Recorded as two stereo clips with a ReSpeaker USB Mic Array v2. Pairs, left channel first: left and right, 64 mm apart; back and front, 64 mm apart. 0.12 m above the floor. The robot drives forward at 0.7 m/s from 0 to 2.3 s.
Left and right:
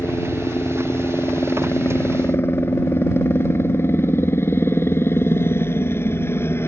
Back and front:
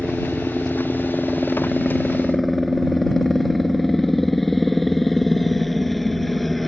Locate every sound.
0.0 s a helicopter: 85° left; by 6.7 s 95° left